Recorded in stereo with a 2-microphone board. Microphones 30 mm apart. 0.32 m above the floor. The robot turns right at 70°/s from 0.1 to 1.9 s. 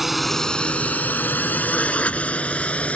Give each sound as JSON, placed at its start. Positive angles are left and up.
{"t": 0.0, "sound": "a drone", "side_deg": -5}